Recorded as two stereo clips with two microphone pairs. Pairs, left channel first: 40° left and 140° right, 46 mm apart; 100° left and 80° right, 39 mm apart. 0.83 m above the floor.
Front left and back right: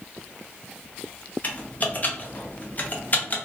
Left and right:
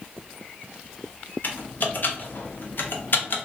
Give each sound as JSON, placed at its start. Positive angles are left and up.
{"t": 1.4, "sound": "typing on a keyboard", "azimuth_deg": 85, "distance_m": 0.5}